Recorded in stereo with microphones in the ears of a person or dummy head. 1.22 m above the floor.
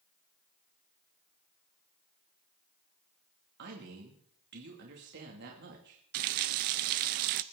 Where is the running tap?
55° right (ahead or behind), 0.5 m.